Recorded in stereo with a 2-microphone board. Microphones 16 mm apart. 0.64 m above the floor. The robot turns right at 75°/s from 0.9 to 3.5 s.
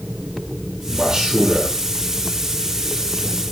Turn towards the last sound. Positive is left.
turn(degrees=45)